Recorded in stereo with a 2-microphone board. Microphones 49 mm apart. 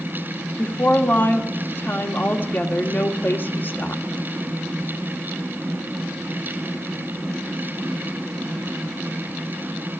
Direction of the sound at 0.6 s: 40° left (ahead or behind).